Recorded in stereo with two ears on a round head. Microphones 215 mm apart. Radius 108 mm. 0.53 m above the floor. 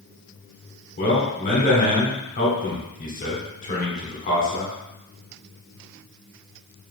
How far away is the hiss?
I don't hear a hiss.